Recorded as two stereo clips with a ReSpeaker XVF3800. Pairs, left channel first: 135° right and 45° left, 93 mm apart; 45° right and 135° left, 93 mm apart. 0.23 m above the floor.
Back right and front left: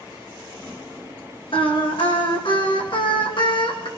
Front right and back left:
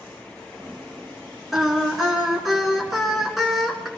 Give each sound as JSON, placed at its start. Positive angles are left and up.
{"t": 1.5, "sound": "singing", "azimuth_deg": -135, "distance_m": 2.5}